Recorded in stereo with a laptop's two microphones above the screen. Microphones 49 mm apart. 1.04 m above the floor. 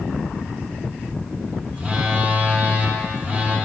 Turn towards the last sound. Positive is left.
turn(degrees=-25)  # may be behind; listen again after turning